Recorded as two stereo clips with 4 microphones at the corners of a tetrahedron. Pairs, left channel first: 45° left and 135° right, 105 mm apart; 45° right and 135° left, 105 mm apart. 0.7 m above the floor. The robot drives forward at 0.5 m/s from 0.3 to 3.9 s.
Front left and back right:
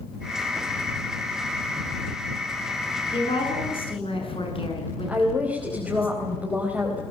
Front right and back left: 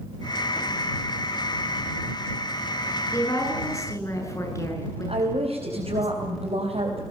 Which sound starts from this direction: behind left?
A woman speaking, at 5.1 s.